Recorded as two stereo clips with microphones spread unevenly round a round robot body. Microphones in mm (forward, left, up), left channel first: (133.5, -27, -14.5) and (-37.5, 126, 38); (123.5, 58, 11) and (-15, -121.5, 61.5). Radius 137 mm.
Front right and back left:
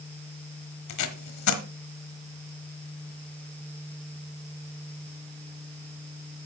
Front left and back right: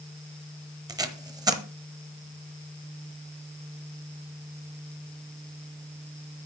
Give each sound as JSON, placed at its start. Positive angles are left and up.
{"t": 0.9, "sound": "tape being pulled", "azimuth_deg": -55, "distance_m": 1.2}